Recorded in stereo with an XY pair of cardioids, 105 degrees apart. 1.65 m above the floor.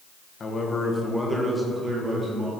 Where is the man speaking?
40° left, 1.3 m; by 2.5 s 40° right, 2 m.